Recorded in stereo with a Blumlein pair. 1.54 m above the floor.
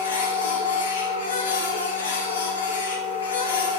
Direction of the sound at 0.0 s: 65° left.